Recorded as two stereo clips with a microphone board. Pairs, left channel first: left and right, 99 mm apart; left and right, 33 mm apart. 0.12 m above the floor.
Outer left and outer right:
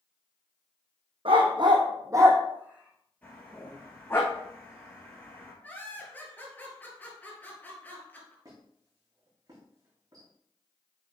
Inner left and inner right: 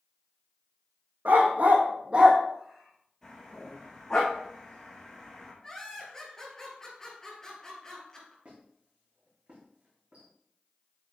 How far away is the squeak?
About 4 m.